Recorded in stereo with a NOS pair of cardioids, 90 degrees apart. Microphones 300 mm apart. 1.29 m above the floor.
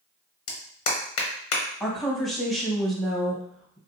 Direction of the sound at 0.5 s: 50° left.